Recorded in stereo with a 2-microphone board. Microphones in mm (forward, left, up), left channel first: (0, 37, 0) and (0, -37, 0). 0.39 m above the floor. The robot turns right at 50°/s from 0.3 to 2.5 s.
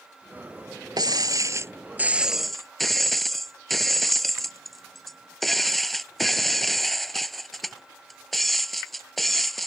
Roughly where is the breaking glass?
Right.